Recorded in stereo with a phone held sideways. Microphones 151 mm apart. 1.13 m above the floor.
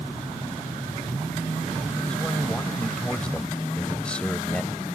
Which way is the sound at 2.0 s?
5° left (ahead or behind).